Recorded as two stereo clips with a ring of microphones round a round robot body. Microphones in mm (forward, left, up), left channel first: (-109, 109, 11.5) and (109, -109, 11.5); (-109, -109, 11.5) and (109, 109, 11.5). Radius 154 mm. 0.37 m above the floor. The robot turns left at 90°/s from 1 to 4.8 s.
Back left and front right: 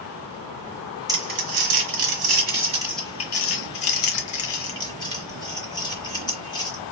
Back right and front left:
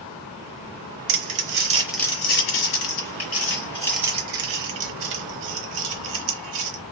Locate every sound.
1.1 s crumpling: 35° left, 1.0 m; by 6.8 s 60° left, 1.0 m